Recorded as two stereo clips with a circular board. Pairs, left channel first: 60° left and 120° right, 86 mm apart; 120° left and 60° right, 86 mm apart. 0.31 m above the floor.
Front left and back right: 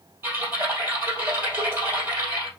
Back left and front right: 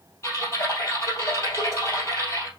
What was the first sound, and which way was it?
Typing on a keyboard, 175° left.